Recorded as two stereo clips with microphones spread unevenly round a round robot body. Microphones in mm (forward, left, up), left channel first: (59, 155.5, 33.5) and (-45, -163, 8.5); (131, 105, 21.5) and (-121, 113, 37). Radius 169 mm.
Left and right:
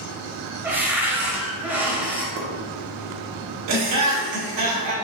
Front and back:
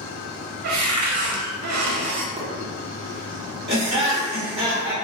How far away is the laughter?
About 1.7 m.